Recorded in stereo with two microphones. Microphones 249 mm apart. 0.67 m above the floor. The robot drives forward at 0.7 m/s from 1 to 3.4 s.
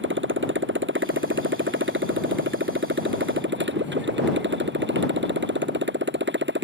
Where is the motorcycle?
50° right (ahead or behind).